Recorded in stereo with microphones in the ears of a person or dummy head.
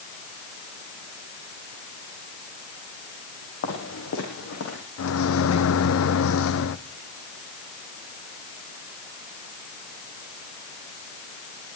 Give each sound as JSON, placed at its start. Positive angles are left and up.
{"t": 3.6, "sound": "footsteps", "side_deg": 75, "distance_m": 6.5}
{"t": 5.0, "sound": "a microwave", "side_deg": 80, "distance_m": 1.0}